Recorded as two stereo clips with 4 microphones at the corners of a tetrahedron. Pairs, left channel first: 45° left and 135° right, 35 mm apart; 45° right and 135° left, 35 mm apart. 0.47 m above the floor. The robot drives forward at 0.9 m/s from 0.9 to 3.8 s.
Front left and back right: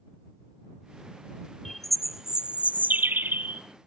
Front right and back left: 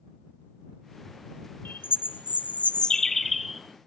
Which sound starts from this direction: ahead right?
A bird, at 1.6 s.